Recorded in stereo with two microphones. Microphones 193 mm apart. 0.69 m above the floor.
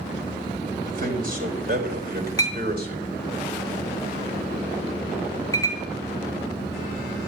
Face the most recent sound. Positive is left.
turn(degrees=20)  # may be behind; listen again after turning